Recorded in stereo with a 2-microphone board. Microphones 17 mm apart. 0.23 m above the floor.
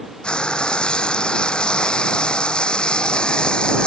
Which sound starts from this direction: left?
Frying, at 0.2 s.